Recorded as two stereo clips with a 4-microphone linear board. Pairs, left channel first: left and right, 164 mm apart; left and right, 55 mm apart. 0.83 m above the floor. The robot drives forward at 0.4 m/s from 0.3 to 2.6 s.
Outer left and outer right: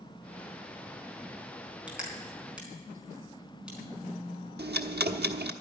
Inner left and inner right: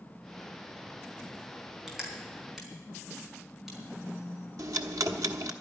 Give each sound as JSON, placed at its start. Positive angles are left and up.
{"t": 1.9, "sound": "crushing", "side_deg": -5, "distance_m": 4.5}
{"t": 4.6, "sound": "ticking", "side_deg": -90, "distance_m": 1.1}